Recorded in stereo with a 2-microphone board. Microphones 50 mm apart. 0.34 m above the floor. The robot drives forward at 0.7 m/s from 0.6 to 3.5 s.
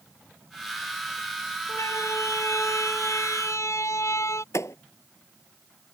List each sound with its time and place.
1.7 s a siren: 80° left; by 4.4 s 70° left (ahead or behind)
4.5 s a thud: 80° left